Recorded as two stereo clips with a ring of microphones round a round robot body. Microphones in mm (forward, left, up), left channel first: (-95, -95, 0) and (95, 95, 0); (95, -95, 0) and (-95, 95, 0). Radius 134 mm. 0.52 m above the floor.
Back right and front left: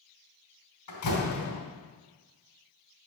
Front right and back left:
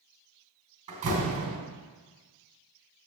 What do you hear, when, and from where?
0.9 s a door slam: 160° right, 3 m